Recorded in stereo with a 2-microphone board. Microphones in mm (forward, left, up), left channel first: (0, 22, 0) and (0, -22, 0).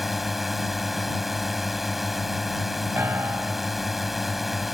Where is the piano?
65° right (ahead or behind).